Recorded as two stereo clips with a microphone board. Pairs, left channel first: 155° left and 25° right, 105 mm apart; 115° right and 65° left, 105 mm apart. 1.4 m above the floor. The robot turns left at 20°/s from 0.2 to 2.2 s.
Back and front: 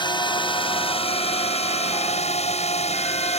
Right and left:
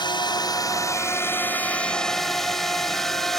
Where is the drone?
160° right; by 3.4 s 160° left.